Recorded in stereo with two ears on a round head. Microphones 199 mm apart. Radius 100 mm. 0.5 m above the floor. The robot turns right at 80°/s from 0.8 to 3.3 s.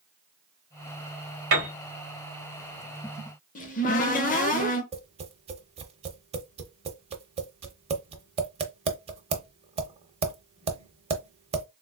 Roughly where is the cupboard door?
Left.